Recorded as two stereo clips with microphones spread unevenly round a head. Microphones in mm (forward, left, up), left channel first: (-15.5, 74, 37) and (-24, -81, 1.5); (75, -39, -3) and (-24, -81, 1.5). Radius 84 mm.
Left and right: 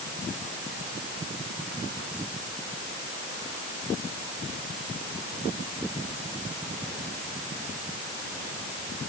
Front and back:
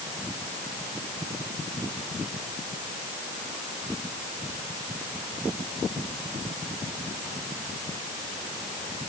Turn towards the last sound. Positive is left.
No sound to turn to.